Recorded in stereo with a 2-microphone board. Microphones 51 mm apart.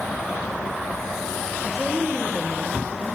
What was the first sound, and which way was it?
A woman speaking, 5° left (ahead or behind).